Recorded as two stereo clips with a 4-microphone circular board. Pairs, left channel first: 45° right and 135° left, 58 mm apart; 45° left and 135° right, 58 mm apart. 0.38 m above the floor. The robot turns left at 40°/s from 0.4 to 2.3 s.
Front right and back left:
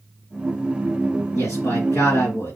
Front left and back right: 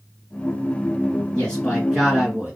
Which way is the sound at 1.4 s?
30° right.